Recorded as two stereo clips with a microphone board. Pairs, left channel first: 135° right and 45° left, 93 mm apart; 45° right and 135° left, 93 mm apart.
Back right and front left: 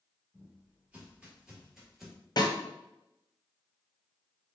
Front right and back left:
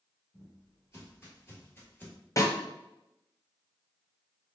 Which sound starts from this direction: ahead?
Footsteps, at 0.3 s.